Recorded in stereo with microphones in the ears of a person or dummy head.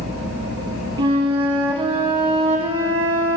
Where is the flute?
35° right (ahead or behind), 1.5 m.